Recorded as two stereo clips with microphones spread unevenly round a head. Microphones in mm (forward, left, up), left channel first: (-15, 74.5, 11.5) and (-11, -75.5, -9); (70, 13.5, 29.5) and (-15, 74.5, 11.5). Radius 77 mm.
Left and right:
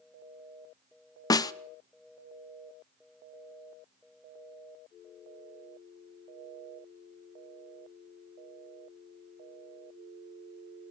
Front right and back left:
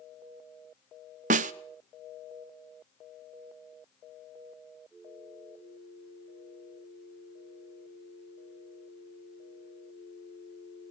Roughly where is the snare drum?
Behind.